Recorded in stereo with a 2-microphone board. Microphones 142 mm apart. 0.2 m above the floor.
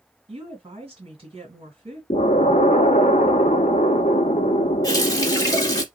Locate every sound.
0.3 s a woman speaking: 45° right (ahead or behind), 2 m
2.1 s an explosion: 65° left (ahead or behind), 0.6 m
4.8 s a running tap: 25° left (ahead or behind), 0.8 m